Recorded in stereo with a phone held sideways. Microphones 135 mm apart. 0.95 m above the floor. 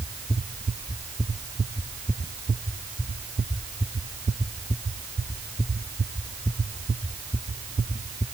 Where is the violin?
No violin in this recording.